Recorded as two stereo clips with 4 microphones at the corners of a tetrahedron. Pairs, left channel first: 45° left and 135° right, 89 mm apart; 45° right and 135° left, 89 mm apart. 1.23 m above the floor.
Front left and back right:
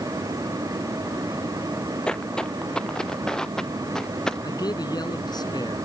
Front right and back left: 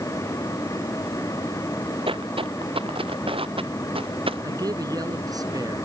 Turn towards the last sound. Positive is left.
turn(degrees=90)